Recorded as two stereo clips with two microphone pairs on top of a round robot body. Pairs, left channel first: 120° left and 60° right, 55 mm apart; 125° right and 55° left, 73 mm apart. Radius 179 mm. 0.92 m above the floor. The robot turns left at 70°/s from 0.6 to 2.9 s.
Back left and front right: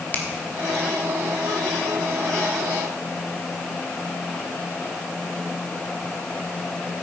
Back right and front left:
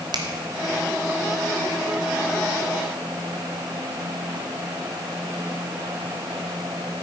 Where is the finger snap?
65° left, 1.7 m.